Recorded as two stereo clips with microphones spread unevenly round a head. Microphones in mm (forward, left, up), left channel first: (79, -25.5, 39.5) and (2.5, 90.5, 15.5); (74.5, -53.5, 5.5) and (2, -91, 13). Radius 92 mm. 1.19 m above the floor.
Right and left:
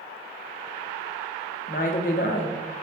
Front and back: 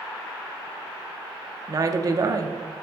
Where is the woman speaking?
105° right, 0.7 m.